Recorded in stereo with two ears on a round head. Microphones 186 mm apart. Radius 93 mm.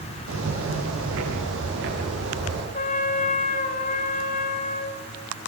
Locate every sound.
0.3 s footsteps: 75° right (ahead or behind), 10 m; by 2.6 s 60° right (ahead or behind), 11 m
2.7 s a trumpet: 40° left (ahead or behind), 4 m